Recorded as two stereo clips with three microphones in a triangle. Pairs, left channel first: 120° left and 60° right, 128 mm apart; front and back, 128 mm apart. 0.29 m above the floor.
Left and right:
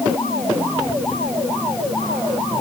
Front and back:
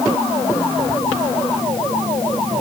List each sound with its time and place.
Only background noise.